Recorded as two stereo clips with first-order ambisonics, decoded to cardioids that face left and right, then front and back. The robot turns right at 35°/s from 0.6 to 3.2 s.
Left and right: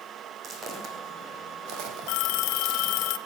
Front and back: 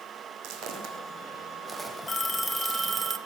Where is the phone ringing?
75° left, 0.9 m; by 3.2 s 115° left, 0.9 m.